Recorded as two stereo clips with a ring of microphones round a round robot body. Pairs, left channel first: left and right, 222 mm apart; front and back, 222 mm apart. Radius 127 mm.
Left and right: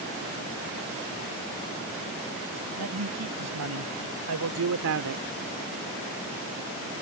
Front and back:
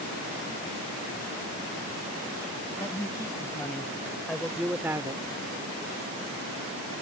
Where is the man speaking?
80° right; by 5.2 s 110° right.